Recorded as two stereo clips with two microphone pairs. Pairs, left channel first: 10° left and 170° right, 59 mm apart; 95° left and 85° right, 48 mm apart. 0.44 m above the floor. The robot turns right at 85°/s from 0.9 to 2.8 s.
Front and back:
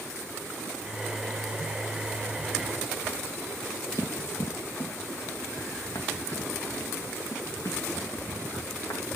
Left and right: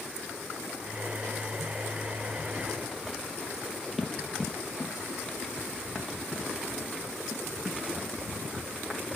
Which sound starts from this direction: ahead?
Running footsteps, at 4.0 s.